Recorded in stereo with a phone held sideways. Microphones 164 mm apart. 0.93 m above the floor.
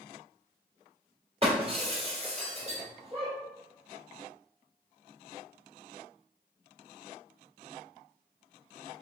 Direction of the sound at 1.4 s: 40° right (ahead or behind).